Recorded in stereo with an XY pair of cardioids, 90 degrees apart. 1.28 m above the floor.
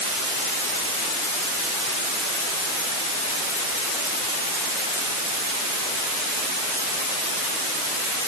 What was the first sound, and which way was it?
Only background noise.